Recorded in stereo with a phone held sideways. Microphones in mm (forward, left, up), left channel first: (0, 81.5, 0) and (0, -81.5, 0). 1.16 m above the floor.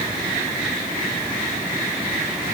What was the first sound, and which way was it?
Only background noise.